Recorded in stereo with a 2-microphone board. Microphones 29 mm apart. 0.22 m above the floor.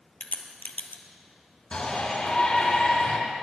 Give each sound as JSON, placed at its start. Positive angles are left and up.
{"t": 0.2, "sound": "a crack", "side_deg": 65, "distance_m": 1.2}
{"t": 1.7, "sound": "a shout", "side_deg": 35, "distance_m": 3.5}